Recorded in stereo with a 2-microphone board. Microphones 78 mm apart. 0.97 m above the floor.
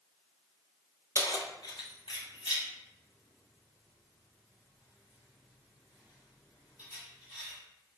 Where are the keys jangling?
40° left (ahead or behind), 0.5 m; by 7.6 s 50° left (ahead or behind), 4 m.